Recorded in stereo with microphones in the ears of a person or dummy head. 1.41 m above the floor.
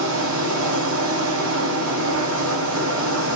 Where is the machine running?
80° right, 0.9 m.